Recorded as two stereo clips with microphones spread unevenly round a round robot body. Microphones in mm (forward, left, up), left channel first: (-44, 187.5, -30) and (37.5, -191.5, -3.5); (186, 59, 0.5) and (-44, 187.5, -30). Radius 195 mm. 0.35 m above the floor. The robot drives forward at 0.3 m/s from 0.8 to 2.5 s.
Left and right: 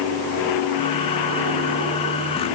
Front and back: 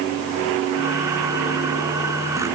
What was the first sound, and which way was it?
Only background noise.